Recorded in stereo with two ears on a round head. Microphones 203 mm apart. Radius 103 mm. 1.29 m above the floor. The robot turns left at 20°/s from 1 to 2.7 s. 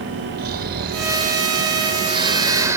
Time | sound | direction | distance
0.4 | snoring | 130° right | ?